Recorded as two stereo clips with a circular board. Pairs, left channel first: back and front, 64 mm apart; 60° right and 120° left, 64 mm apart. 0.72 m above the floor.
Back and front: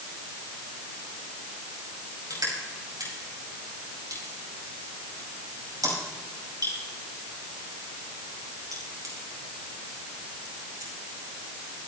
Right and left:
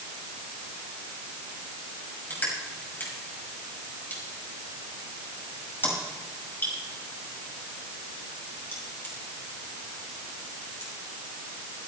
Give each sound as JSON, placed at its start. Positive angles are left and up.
{"t": 2.3, "sound": "crushing", "azimuth_deg": 0, "distance_m": 5.5}